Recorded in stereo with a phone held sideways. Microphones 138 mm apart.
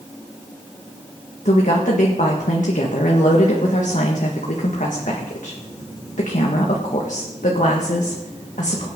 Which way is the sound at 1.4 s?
70° left (ahead or behind).